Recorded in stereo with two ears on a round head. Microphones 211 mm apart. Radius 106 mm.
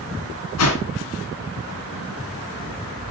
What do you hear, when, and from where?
0.6 s a whoosh: 70° left (ahead or behind), 3.5 m